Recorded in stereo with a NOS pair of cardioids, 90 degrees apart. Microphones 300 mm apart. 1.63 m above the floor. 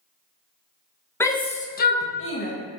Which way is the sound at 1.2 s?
10° left.